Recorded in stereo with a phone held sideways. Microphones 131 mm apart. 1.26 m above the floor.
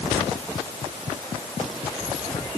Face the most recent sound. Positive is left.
No sound to turn to.